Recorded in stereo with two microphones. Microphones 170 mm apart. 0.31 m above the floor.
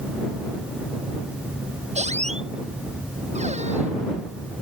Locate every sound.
1.9 s a squeak: 45° right (ahead or behind)